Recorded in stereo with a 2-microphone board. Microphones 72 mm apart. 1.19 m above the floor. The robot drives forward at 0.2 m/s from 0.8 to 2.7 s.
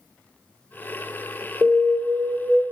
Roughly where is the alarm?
Right.